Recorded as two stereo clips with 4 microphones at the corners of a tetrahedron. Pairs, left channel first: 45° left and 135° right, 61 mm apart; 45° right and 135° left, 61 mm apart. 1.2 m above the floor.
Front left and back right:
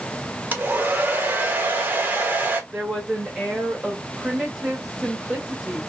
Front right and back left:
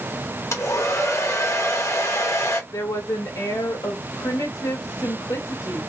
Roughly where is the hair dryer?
Right.